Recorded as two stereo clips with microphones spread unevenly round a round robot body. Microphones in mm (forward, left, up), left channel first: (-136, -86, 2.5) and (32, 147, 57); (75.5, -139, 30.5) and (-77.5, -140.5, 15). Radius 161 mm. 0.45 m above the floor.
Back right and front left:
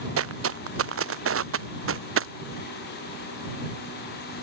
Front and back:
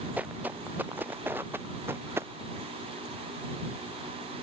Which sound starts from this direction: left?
Footsteps, at 0.2 s.